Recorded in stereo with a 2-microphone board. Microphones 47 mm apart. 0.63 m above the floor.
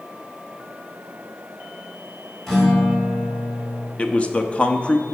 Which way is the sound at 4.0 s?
25° left (ahead or behind).